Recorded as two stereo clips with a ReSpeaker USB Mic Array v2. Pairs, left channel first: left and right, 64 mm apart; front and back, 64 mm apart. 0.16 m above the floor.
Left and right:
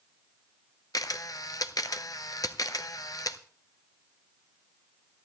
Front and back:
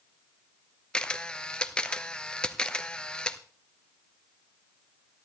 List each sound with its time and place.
0.9 s a camera shutter: 75° left, 0.6 m